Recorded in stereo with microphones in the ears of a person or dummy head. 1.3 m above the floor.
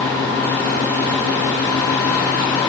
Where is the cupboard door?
I don't hear a cupboard door.